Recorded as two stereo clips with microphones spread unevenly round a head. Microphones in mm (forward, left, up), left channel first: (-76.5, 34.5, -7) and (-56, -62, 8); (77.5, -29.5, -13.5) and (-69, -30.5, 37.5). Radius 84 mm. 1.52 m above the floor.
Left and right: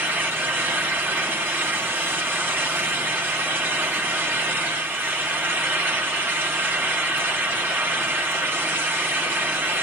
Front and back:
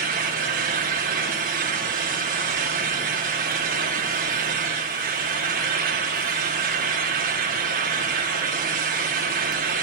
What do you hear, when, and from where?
0.0 s a fan: 150° right, 3 m